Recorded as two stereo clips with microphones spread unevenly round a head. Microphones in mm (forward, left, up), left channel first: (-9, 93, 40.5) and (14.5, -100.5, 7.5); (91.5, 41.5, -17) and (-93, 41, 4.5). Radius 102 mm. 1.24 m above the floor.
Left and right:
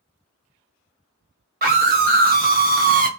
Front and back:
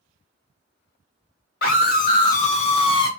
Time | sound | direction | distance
1.6 | a scream | 45° right | 1.3 m